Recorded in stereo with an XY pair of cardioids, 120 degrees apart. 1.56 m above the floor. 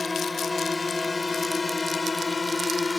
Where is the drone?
20° left; by 3.0 s 25° left.